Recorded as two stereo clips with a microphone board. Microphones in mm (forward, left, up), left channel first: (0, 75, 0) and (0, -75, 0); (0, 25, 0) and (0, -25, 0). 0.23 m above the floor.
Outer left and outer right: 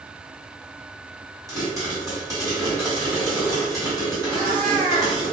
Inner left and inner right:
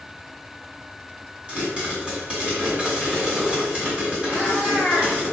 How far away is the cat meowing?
About 1.8 m.